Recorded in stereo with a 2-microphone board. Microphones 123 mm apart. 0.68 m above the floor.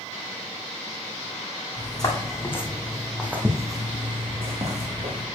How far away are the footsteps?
About 2.5 m.